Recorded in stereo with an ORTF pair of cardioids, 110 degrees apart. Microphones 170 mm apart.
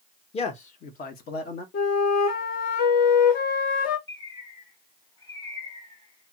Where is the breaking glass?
No breaking glass in this recording.